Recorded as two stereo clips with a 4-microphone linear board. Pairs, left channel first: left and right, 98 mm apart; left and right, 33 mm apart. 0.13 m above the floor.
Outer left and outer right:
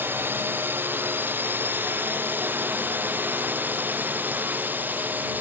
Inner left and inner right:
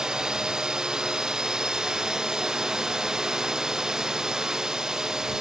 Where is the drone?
20° right (ahead or behind).